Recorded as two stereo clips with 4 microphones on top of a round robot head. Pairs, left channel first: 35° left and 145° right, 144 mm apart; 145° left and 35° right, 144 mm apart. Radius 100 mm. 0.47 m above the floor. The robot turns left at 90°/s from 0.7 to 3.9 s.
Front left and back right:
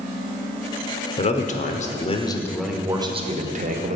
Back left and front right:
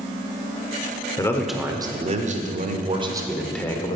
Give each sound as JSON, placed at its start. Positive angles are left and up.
{"t": 1.2, "sound": "a man speaking", "azimuth_deg": 80, "distance_m": 1.5}